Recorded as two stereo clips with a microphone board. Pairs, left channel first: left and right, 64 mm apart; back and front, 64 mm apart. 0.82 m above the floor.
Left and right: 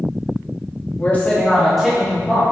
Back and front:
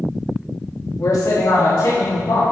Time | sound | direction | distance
1.0 | a man speaking | 145° left | 0.9 m